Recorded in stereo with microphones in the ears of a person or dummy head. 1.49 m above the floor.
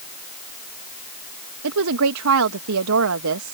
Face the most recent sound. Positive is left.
turn(degrees=-70)  # may be behind; listen again after turning